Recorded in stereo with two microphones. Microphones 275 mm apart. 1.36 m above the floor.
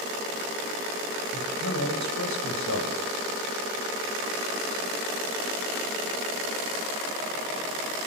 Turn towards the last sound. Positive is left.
turn(degrees=80)